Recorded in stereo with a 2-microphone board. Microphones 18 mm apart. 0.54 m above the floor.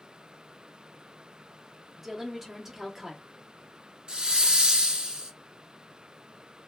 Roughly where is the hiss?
Right.